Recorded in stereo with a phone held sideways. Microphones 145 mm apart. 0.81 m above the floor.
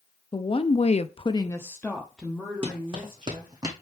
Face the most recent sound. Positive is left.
turn(degrees=-25)  # may be behind; listen again after turning